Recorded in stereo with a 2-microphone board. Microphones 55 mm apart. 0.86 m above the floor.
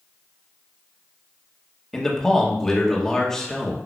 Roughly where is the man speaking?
Centre.